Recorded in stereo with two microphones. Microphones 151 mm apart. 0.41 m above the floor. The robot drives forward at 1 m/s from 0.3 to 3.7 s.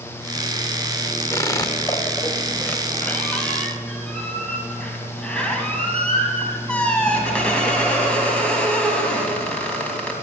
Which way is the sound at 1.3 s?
20° left (ahead or behind).